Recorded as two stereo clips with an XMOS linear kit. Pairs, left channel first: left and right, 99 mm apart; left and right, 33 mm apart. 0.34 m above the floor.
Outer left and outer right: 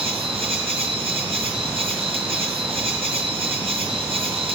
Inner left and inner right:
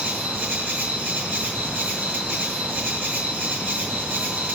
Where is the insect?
70° right (ahead or behind), 5 m.